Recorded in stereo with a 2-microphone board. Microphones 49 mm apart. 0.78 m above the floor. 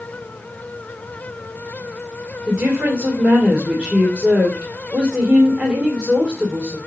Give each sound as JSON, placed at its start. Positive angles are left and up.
{"t": 2.5, "sound": "a woman speaking", "side_deg": -30, "distance_m": 2.5}